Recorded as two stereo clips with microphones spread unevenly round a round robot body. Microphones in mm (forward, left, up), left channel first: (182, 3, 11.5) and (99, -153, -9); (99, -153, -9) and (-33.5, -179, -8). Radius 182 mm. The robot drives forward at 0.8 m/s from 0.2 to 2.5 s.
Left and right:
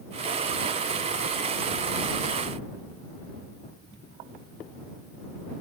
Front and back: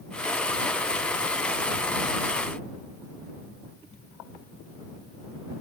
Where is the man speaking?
I don't hear a man speaking.